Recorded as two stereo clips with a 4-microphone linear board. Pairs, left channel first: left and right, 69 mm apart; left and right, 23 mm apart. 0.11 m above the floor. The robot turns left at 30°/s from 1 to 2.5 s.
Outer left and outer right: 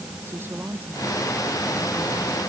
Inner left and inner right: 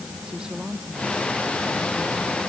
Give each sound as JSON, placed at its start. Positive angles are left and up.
{"t": 0.2, "sound": "a woman speaking", "azimuth_deg": -150}